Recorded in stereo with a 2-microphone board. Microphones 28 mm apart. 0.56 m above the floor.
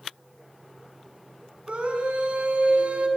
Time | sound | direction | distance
1.7 | a scream | 45° right (ahead or behind) | 7 m